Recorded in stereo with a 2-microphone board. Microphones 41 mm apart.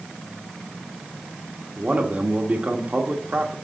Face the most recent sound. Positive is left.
turn(degrees=-35)  # may be behind; listen again after turning